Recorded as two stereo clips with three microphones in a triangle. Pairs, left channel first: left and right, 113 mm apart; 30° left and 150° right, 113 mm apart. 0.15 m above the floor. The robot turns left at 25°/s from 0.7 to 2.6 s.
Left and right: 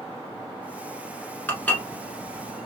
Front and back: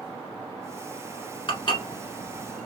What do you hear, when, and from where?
1.5 s dishes clattering: 20° left, 1.4 m; by 2.7 s 5° right, 1.4 m